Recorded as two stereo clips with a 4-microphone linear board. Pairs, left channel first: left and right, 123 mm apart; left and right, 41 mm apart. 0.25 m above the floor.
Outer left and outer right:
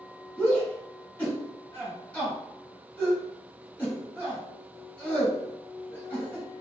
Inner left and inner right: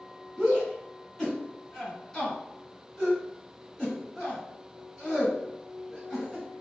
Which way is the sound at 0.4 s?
10° left (ahead or behind).